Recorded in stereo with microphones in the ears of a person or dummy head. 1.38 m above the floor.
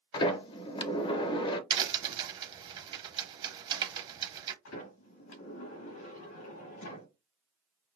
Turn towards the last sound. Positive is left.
turn(degrees=65)  # may be behind; listen again after turning